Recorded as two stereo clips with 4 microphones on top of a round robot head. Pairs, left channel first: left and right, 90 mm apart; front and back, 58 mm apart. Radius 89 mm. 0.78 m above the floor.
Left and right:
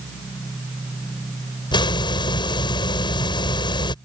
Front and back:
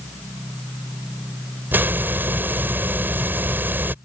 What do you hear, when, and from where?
1.7 s a hiss: 125° left